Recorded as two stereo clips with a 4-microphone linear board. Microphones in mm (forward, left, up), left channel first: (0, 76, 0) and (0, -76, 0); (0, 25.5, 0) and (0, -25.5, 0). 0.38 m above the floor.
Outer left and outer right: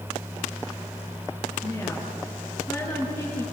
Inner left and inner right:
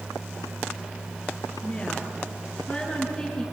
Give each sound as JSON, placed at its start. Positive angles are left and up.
{"t": 1.6, "sound": "a woman speaking", "side_deg": 20, "distance_m": 6.5}